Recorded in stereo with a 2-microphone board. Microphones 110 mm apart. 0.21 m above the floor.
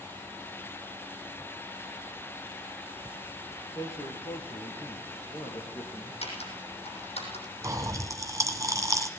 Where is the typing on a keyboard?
70° left (ahead or behind), 7 m.